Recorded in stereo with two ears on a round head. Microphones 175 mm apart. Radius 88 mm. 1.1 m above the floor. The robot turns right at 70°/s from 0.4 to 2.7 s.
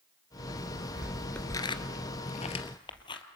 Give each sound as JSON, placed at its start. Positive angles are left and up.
{"t": 0.6, "sound": "footsteps", "side_deg": -10, "distance_m": 1.1}